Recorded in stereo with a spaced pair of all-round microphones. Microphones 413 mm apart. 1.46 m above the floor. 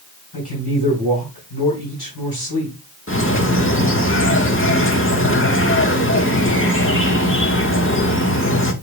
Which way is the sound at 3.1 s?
30° left (ahead or behind).